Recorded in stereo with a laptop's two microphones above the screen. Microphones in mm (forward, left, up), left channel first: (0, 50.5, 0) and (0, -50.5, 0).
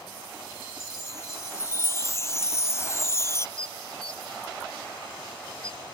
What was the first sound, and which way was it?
A chime, 30° left (ahead or behind).